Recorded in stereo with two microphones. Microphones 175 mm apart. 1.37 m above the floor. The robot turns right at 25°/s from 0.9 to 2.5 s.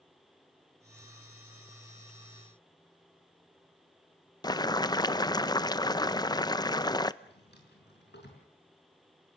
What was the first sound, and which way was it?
Boiling, 25° left (ahead or behind).